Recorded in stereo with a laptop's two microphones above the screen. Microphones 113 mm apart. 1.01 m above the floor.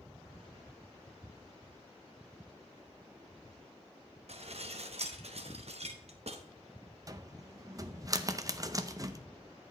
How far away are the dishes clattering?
About 0.8 m.